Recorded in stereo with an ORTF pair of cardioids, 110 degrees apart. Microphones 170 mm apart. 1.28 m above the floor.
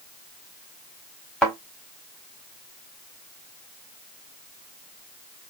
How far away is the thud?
About 2 m.